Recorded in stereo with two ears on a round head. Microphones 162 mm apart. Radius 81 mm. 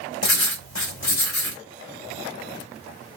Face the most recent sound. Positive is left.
turn(degrees=80)